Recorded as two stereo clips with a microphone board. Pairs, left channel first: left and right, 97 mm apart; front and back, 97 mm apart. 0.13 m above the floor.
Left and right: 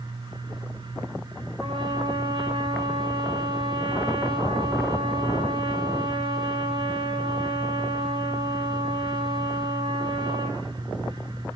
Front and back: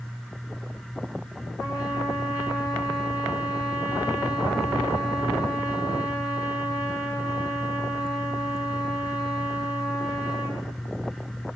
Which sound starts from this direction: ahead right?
A trumpet, at 1.6 s.